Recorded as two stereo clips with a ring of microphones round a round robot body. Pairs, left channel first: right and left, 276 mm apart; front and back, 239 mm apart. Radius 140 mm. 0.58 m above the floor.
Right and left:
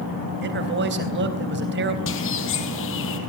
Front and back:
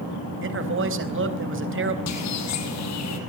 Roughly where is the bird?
Ahead right.